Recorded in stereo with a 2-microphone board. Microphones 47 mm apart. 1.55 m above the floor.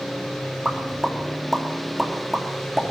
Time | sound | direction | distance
0.7 | a pop | centre (ahead or behind) | 3 m